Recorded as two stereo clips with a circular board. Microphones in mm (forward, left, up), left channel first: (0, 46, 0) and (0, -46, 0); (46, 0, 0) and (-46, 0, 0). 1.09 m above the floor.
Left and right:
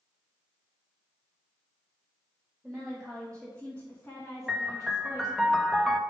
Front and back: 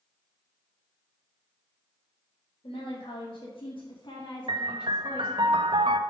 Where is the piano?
Straight behind, 0.5 m.